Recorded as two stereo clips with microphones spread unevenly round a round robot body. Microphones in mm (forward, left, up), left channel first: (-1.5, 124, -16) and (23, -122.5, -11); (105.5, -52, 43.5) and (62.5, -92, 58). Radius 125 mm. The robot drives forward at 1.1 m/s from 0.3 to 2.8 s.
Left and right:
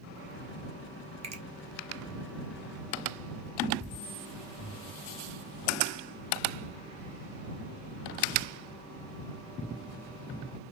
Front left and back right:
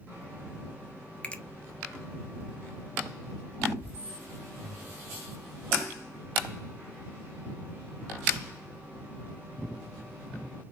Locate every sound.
1.2 s a finger snap: 20° right, 1.9 m